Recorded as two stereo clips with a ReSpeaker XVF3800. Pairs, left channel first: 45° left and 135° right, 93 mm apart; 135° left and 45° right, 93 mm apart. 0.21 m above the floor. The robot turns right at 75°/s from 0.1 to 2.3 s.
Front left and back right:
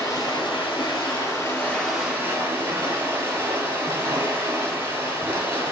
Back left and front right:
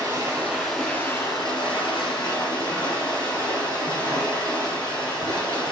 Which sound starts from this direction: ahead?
Running water, at 0.0 s.